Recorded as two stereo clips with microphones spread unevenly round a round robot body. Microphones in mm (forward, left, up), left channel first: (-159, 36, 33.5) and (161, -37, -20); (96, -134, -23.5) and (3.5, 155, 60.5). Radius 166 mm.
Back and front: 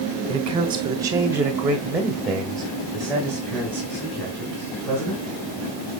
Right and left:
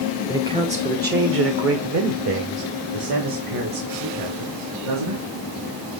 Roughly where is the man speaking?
Ahead.